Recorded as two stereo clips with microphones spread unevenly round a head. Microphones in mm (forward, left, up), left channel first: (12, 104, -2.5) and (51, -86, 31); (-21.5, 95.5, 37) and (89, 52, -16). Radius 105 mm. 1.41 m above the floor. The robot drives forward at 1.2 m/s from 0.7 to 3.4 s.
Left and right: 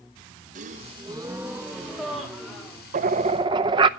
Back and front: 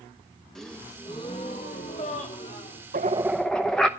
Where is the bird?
65° right, 0.6 m; by 3.9 s 135° right, 0.7 m.